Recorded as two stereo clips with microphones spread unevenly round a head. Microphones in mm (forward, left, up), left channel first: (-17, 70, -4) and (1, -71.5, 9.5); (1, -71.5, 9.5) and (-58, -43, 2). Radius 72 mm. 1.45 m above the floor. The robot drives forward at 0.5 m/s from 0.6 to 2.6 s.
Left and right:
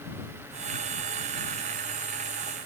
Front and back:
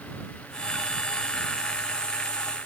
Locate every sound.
Only background noise.